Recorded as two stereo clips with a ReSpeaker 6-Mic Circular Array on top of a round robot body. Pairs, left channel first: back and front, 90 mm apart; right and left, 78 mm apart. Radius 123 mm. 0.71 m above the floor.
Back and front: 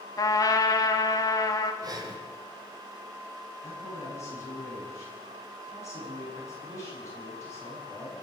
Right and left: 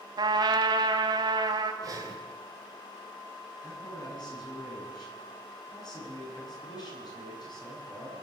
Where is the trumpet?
125° left, 1.5 m.